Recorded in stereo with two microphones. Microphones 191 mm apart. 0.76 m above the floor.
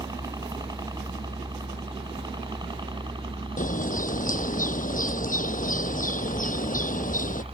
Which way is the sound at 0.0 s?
20° right (ahead or behind).